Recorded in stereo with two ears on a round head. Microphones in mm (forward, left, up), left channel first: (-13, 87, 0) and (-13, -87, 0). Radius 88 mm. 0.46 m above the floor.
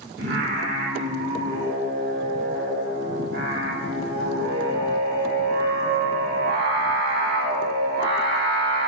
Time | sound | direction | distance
0.2 | singing | 55° right (ahead or behind) | 0.7 m